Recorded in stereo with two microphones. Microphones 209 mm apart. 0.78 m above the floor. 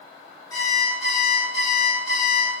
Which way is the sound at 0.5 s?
15° left (ahead or behind).